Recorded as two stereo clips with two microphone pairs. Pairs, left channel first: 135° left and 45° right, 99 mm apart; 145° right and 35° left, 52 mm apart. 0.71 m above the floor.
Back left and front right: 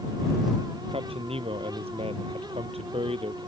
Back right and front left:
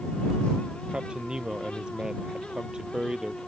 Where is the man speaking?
35° right; by 3.5 s 40° right.